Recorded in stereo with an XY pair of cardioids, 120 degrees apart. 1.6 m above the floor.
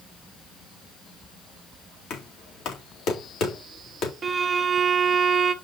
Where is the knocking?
65° left, 2.5 m.